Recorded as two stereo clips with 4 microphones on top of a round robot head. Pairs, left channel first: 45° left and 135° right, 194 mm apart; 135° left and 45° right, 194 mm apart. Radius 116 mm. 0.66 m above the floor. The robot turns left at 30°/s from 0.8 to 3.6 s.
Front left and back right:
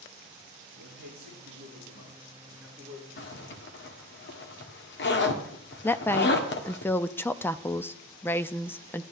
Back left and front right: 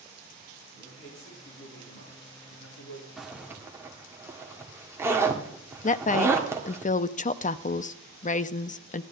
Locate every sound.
0.7 s a man speaking: 165° right, 8 m; by 3.1 s 130° left, 8 m
3.2 s a zipper: 45° left, 1.7 m; by 6.8 s 30° left, 1.7 m
5.8 s a woman speaking: 120° left, 0.6 m